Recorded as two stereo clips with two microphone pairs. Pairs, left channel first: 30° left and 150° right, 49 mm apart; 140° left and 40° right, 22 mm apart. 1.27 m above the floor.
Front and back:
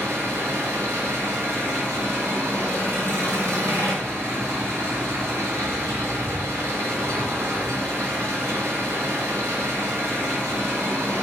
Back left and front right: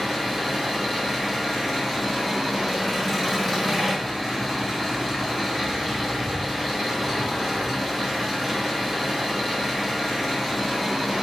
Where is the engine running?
130° right, 4.5 m.